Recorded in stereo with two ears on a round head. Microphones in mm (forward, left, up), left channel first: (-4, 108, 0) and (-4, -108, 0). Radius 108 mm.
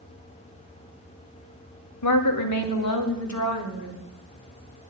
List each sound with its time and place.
2.0 s a woman speaking: 85° left, 2 m; by 4.0 s 80° left, 3.5 m